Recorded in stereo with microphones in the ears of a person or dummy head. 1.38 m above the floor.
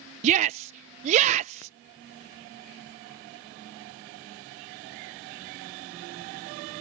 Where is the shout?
40° right (ahead or behind).